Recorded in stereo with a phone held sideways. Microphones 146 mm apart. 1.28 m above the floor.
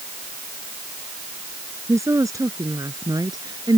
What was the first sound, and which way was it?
A woman speaking, 20° right (ahead or behind).